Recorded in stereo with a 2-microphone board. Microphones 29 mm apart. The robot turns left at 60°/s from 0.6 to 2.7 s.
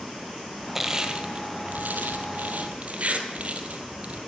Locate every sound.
0.8 s crushing: 10° right (ahead or behind), 1.7 m; by 4.2 s 50° right (ahead or behind), 1.7 m